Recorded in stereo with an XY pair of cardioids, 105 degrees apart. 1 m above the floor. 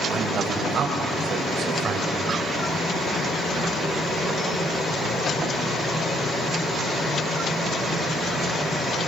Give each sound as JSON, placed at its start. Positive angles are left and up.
{"t": 0.1, "sound": "a man speaking", "azimuth_deg": -65, "distance_m": 6.0}